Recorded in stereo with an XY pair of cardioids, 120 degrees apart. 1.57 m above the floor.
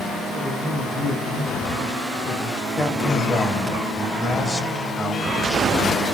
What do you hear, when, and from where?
0.3 s a man speaking: 10° left, 6 m
2.8 s a man speaking: 25° left, 3 m